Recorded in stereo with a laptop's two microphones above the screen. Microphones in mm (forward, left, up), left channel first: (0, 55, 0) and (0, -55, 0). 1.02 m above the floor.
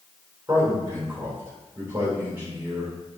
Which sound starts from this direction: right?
A man speaking, at 0.5 s.